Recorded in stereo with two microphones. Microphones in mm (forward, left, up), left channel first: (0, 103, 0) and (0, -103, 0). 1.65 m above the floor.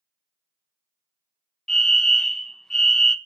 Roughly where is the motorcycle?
No motorcycle in this recording.